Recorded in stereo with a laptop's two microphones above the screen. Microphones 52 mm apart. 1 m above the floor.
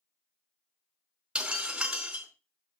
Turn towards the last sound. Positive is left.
turn(degrees=-15)  # may be behind; listen again after turning